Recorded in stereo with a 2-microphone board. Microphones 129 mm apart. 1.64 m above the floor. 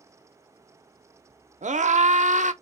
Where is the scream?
65° right (ahead or behind), 0.8 m.